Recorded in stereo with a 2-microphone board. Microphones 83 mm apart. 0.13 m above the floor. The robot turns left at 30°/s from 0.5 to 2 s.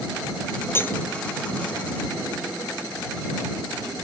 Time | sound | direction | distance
0.8 | cutlery clinking | 30° left (ahead or behind) | ?